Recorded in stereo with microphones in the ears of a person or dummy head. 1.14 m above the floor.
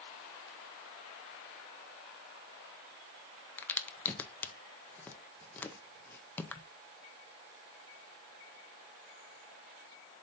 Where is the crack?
10° left (ahead or behind), 0.6 m.